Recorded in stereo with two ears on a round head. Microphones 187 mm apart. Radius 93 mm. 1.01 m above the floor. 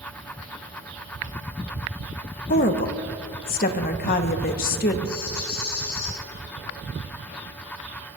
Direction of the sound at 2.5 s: 45° left (ahead or behind).